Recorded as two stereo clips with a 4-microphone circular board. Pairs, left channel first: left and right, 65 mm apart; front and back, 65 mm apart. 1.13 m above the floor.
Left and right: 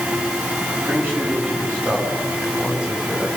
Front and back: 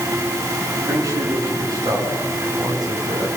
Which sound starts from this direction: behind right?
A man speaking, at 0.9 s.